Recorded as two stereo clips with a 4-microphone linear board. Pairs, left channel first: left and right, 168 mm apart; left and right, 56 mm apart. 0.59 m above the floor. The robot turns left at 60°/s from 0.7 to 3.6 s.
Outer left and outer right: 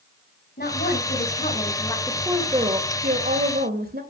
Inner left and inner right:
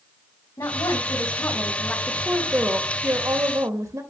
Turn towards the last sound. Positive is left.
turn(degrees=-95)